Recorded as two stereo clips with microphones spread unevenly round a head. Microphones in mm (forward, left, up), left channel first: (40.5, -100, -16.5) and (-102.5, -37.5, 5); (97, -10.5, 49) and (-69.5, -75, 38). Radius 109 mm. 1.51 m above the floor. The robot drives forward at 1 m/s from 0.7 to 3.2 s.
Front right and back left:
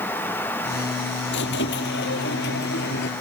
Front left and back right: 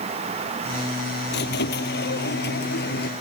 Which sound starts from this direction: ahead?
A squeak, at 1.3 s.